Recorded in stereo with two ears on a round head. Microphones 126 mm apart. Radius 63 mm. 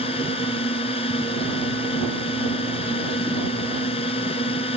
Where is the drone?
40° left (ahead or behind).